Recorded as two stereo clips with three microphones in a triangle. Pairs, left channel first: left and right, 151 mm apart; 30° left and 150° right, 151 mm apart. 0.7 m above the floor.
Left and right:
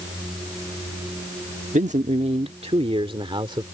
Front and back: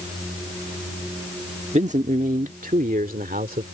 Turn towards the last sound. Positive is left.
turn(degrees=-145)